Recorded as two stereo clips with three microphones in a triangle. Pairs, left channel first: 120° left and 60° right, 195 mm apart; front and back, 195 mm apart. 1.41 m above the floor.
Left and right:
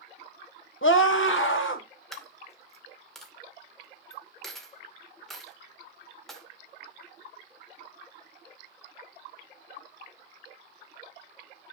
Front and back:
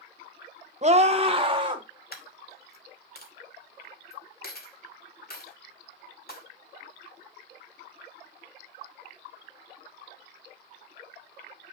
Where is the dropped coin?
30° left, 2.5 m.